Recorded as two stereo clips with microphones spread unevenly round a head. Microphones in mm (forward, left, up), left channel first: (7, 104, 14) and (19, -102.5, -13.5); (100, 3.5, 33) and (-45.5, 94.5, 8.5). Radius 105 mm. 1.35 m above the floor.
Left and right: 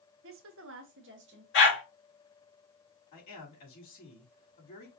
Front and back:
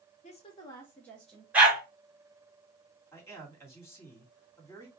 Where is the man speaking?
45° left, 3 m.